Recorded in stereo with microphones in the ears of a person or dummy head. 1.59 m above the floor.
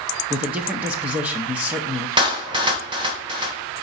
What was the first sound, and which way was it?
A man speaking, 5° right (ahead or behind).